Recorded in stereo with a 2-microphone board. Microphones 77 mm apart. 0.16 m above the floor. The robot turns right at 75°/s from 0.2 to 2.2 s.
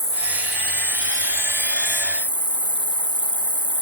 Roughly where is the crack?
I don't hear a crack.